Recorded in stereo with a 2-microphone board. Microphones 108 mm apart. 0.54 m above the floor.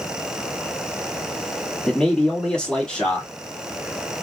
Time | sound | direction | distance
1.9 | a man speaking | 10° left (ahead or behind) | 1.5 m